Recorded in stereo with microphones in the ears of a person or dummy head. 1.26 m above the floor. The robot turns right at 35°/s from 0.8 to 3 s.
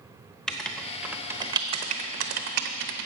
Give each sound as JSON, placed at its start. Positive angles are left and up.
{"t": 0.5, "sound": "writing", "side_deg": -5, "distance_m": 0.7}